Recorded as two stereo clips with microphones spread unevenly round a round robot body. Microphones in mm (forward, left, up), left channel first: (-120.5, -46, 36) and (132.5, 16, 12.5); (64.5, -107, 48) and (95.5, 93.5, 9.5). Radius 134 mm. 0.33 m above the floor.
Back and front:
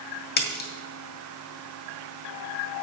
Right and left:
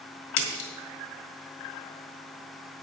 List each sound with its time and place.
0.4 s a splash: 115° right, 1.9 m